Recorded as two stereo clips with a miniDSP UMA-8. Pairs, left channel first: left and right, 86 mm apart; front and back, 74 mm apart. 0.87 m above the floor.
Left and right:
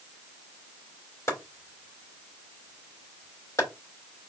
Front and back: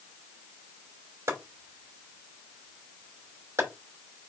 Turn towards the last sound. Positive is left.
turn(degrees=140)